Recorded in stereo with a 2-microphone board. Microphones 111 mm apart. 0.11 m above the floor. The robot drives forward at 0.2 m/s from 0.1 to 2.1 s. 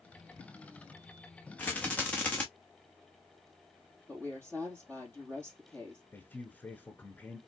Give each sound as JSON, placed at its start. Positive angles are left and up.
{"t": 1.6, "sound": "a rattle", "side_deg": 15, "distance_m": 1.5}
{"t": 4.1, "sound": "a woman speaking", "side_deg": 15, "distance_m": 3.0}
{"t": 6.1, "sound": "a man speaking", "side_deg": 15, "distance_m": 1.2}